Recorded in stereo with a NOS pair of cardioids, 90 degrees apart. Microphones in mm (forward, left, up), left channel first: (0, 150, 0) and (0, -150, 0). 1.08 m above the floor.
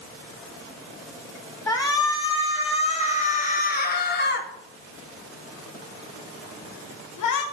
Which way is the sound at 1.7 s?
10° left.